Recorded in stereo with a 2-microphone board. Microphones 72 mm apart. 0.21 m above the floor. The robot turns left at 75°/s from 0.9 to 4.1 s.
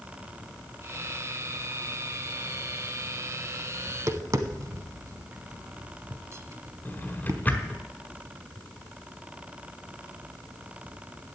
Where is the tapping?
30° right (ahead or behind), 0.8 m; by 7.4 s 45° right (ahead or behind), 0.8 m.